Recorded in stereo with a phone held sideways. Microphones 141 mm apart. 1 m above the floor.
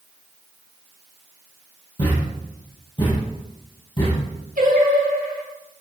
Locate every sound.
2.0 s a thud: 35° left (ahead or behind), 5.5 m
4.6 s singing: 85° right, 2.5 m